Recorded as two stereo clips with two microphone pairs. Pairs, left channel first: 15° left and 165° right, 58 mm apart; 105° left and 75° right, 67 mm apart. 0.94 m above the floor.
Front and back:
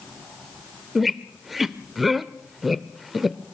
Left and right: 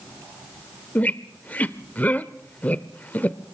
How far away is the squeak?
About 0.6 m.